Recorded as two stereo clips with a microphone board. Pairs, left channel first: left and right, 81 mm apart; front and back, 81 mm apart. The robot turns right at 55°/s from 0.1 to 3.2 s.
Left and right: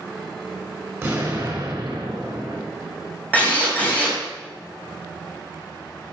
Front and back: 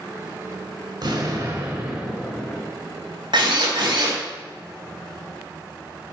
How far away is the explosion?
About 3.5 m.